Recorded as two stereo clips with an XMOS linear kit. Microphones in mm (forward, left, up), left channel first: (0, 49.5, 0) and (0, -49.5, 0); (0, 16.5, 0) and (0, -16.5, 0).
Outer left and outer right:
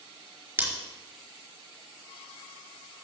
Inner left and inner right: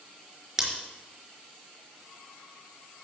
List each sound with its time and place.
0.6 s scissors: 20° right (ahead or behind), 4 m